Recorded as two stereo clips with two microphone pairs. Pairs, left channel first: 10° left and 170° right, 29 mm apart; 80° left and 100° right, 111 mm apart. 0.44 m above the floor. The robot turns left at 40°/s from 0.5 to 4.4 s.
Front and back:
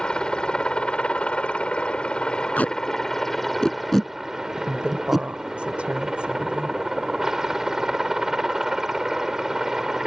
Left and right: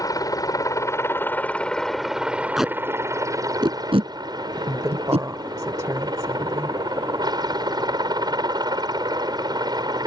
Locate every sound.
0.0 s a helicopter: 50° left; by 10.1 s 105° right
2.6 s tape being pulled: 10° right; by 5.3 s 85° right
4.6 s a woman speaking: 150° right